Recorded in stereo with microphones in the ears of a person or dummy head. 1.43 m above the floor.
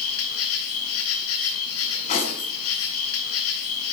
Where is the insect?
80° left, 4.5 m.